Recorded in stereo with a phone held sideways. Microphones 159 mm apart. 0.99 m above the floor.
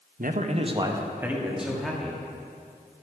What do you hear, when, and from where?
0.2 s a man speaking: 65° right (ahead or behind), 0.7 m; by 2.2 s 5° left (ahead or behind), 2.0 m